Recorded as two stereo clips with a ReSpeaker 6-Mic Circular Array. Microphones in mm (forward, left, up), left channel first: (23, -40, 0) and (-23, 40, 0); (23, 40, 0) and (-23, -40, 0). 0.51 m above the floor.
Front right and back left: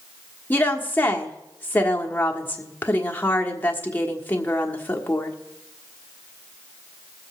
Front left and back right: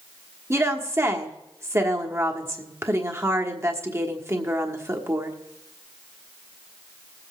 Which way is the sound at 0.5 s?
105° right.